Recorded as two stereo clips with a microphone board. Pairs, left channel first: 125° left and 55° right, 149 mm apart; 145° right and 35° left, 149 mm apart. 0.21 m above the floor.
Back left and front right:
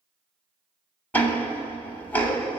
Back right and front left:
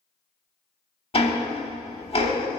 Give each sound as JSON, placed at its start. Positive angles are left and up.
{"t": 1.1, "sound": "ticking", "azimuth_deg": -165, "distance_m": 0.7}